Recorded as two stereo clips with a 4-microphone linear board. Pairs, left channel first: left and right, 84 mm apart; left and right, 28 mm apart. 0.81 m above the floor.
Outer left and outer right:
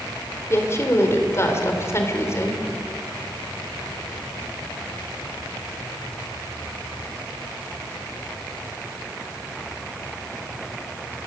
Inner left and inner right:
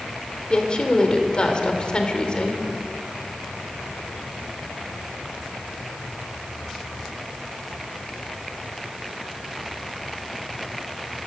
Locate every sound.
0.5 s a woman speaking: 35° left (ahead or behind), 3.5 m